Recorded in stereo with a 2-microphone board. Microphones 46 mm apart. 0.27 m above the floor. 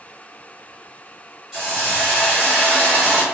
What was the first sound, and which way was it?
A hiss, 5° right (ahead or behind).